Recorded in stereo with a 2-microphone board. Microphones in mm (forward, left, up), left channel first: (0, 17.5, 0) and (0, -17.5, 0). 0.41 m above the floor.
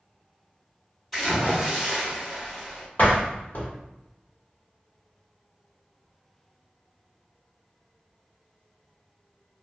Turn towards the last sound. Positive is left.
turn(degrees=50)  # may be behind; listen again after turning